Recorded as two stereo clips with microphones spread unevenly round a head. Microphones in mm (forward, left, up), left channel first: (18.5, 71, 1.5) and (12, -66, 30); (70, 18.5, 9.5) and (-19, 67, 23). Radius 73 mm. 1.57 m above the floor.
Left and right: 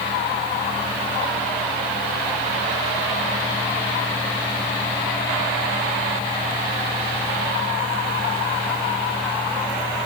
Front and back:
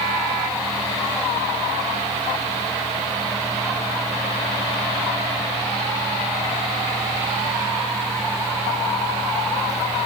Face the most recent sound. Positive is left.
No sound to turn to.